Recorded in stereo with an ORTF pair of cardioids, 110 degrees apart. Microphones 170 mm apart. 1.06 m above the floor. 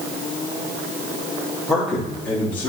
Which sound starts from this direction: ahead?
A man speaking, at 1.7 s.